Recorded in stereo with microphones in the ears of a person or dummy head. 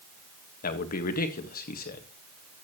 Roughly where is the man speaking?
Left.